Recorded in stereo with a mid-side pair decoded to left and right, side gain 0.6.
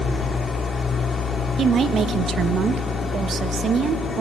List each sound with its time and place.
0.0 s an engine running: 25° left, 2 m
1.6 s a woman speaking: 40° right, 1.2 m